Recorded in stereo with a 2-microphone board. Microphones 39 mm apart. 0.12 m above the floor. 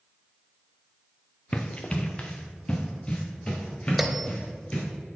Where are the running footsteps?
30° left (ahead or behind), 0.8 m; by 4.8 s 20° left (ahead or behind), 3.5 m.